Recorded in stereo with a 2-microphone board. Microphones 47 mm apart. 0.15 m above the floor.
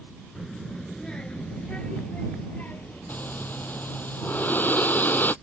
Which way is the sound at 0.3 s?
Centre (ahead or behind).